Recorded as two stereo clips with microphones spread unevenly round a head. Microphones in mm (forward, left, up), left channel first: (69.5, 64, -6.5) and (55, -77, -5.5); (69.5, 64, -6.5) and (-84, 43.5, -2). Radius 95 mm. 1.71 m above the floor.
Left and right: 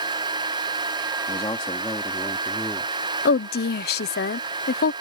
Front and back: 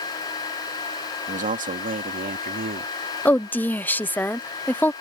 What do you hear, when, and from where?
1.3 s a man speaking: 150° left; by 2.9 s 165° left
3.2 s a woman speaking: 85° left